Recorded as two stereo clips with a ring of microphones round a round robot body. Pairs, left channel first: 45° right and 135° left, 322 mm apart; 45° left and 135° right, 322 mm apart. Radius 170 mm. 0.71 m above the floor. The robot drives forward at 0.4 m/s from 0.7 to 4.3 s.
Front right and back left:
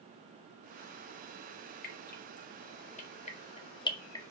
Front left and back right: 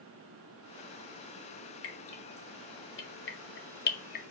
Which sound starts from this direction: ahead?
Dripping, at 1.8 s.